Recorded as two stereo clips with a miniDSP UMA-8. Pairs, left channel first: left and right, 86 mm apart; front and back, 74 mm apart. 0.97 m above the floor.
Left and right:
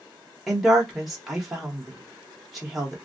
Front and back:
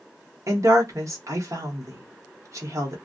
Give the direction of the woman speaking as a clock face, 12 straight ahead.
6 o'clock.